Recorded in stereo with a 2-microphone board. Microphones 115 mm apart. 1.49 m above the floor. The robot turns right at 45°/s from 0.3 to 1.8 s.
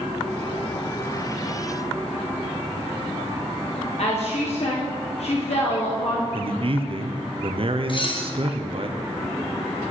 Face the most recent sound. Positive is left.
turn(degrees=45)  # may be behind; listen again after turning